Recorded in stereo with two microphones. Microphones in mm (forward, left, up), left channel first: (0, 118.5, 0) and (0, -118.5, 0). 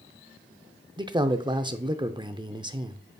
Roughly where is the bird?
No bird in this recording.